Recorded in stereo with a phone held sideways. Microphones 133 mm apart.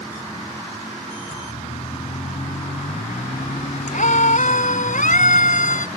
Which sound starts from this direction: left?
A siren, at 1.3 s.